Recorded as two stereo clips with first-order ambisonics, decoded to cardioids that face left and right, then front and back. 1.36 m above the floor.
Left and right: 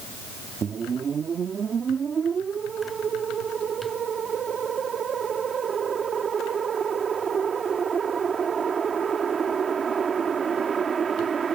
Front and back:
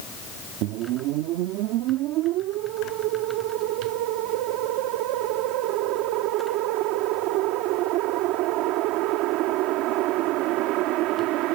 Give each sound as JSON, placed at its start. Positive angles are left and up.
{"t": 0.6, "sound": "a whoosh", "azimuth_deg": -160}